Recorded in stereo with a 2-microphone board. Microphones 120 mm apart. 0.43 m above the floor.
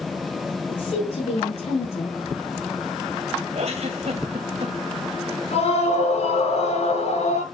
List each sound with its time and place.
0.7 s a woman speaking: 65° left (ahead or behind), 6 m; by 2.2 s 70° left (ahead or behind), 7 m
3.5 s a giggle: 60° right (ahead or behind), 2 m
5.5 s a scream: 65° left (ahead or behind), 7.5 m